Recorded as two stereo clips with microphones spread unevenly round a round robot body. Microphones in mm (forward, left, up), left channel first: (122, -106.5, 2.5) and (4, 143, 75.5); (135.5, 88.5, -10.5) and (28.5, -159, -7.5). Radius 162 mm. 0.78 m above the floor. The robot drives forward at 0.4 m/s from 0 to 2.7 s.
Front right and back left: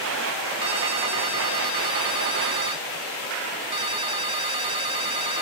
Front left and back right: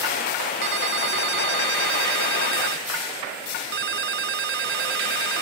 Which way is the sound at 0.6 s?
170° right.